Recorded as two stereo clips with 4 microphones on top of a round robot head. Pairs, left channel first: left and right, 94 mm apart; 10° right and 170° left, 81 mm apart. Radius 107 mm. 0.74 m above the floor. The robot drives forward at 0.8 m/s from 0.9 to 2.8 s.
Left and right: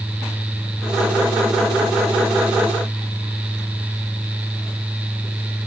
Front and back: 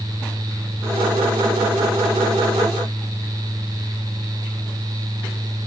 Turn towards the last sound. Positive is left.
No sound to turn to.